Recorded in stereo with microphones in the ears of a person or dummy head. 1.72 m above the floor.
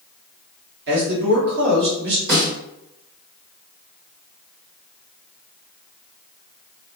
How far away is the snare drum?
About 1.7 m.